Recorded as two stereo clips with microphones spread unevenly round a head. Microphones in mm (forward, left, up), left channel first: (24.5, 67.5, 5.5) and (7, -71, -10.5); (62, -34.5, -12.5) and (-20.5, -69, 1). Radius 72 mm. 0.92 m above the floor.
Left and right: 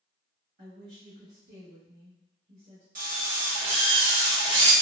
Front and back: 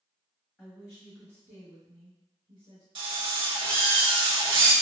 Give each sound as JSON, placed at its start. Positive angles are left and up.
{"t": 0.6, "sound": "a woman speaking", "azimuth_deg": -60, "distance_m": 1.1}
{"t": 3.0, "sound": "a drill", "azimuth_deg": -135, "distance_m": 0.9}